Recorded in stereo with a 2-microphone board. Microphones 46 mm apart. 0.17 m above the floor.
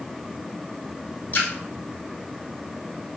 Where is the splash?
40° left (ahead or behind), 1.1 m.